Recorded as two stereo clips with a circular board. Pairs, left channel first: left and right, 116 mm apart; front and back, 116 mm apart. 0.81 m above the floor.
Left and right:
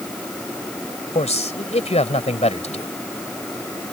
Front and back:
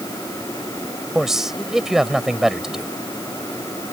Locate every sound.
1.1 s a man speaking: 95° left